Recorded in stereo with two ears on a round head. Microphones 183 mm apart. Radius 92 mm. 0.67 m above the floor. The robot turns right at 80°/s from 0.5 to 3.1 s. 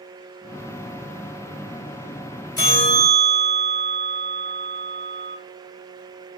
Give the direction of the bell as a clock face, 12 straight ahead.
7 o'clock.